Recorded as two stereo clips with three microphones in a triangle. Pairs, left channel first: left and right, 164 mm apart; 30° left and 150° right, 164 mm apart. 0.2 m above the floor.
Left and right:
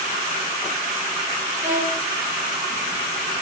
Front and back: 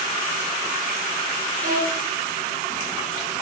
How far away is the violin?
About 2.5 m.